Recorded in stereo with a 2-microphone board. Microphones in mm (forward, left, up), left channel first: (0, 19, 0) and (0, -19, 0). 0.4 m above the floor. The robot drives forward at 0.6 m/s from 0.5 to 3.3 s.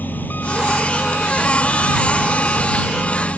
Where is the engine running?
65° left (ahead or behind); by 3.4 s 55° left (ahead or behind).